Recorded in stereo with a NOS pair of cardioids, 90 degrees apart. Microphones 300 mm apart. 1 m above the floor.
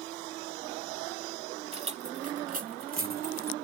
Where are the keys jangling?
20° right; by 3.5 s 30° right.